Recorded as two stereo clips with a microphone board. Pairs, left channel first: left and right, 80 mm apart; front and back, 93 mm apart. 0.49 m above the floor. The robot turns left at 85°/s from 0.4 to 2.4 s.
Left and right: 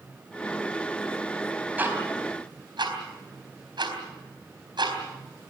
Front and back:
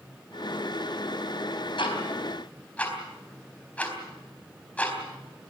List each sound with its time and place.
1.8 s ticking: 20° right, 4 m; by 5.5 s 75° right, 4 m